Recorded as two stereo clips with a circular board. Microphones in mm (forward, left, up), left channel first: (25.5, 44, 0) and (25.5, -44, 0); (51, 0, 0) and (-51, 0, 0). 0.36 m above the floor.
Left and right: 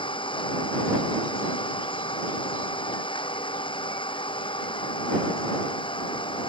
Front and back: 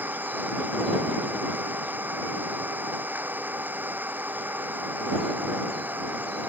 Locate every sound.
0.0 s an engine running: 110° left